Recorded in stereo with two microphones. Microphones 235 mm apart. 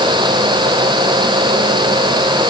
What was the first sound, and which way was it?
Only background noise.